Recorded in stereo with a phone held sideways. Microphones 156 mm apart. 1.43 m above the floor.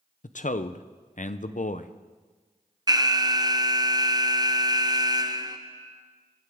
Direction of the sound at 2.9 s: 25° right (ahead or behind).